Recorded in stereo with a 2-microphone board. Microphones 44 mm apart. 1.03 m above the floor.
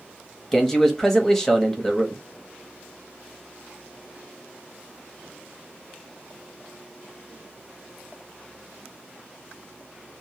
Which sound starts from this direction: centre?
A man speaking, at 0.5 s.